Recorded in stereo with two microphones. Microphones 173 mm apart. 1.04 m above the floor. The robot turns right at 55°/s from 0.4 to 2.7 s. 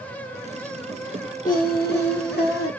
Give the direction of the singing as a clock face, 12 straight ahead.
10 o'clock.